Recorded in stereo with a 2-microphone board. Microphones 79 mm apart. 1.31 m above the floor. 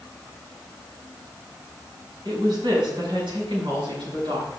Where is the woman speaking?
80° right, 5 m.